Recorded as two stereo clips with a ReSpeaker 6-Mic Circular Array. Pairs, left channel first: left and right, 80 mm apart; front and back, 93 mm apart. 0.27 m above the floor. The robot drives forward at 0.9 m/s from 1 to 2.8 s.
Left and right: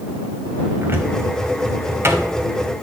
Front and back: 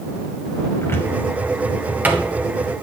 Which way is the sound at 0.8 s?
50° right.